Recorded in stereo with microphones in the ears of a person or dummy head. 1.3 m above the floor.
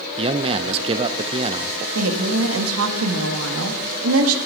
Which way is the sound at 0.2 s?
30° right (ahead or behind).